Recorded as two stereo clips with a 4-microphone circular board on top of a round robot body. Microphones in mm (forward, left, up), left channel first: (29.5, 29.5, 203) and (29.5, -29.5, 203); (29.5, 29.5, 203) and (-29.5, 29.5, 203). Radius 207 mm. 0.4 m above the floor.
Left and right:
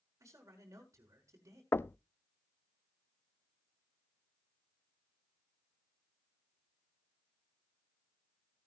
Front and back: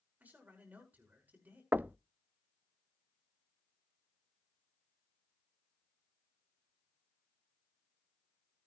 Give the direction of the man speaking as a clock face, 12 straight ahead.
4 o'clock.